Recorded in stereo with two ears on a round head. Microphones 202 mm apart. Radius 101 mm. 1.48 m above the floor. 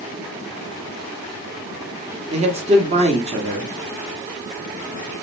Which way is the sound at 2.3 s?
30° right (ahead or behind).